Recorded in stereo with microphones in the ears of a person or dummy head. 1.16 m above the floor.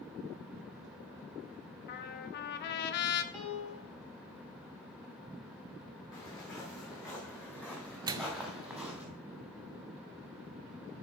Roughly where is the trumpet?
Left.